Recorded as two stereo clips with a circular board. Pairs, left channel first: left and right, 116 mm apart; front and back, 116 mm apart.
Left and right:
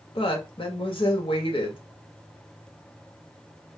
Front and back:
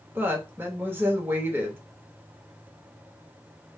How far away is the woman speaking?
About 1.0 m.